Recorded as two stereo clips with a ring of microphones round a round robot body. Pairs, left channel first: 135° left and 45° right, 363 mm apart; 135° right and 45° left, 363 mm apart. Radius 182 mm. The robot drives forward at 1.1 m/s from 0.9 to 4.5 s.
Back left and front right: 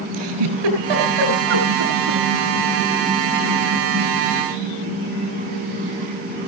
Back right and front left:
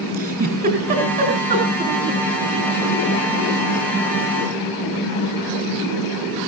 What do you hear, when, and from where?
0.1 s a giggle: 25° right, 7.5 m; by 2.2 s 30° right, 6.5 m